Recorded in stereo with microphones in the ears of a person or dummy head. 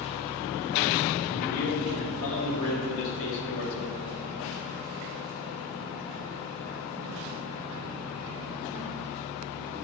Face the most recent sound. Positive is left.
turn(degrees=60)  # may be behind; listen again after turning